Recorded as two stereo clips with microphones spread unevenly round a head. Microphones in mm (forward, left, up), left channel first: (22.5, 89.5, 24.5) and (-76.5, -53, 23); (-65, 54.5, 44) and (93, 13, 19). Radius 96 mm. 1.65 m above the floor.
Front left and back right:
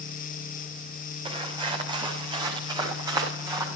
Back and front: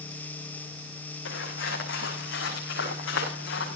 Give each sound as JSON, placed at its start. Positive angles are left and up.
{"t": 1.2, "sound": "footsteps", "azimuth_deg": 175, "distance_m": 6.0}